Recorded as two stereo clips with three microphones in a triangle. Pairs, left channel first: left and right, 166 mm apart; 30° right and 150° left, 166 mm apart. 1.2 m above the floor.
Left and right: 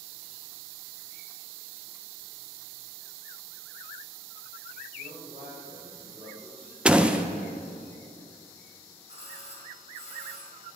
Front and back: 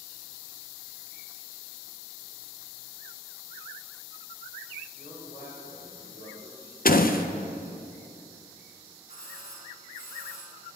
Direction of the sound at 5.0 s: 50° right.